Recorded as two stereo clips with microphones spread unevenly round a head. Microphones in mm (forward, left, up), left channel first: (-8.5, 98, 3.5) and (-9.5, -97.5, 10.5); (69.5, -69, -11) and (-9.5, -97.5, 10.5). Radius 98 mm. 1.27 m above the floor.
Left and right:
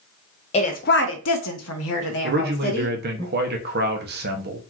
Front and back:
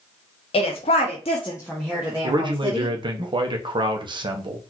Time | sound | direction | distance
0.5 | a woman speaking | 30° left | 0.8 m
2.2 | a man speaking | 125° right | 0.8 m